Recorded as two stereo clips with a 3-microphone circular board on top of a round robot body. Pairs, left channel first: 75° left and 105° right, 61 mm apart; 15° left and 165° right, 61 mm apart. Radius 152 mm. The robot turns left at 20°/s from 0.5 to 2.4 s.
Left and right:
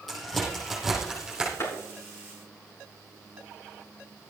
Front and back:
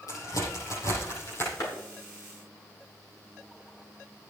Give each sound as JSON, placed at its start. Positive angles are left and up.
{"t": 0.1, "sound": "a crack", "azimuth_deg": -15, "distance_m": 7.0}
{"t": 1.6, "sound": "a clap", "azimuth_deg": 35, "distance_m": 6.0}